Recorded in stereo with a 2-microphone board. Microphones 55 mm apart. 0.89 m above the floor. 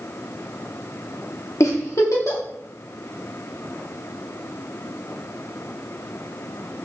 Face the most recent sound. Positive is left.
turn(degrees=65)  # may be behind; listen again after turning